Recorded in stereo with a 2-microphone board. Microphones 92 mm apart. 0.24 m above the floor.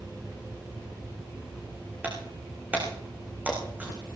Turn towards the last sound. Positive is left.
turn(degrees=-20)  # may be behind; listen again after turning